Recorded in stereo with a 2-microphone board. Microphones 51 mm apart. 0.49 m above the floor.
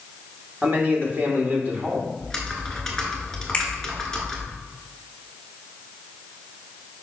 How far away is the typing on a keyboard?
About 1.3 m.